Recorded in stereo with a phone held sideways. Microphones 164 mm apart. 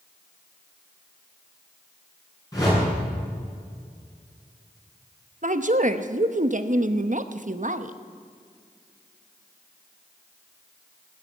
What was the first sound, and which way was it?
A whoosh, 20° left (ahead or behind).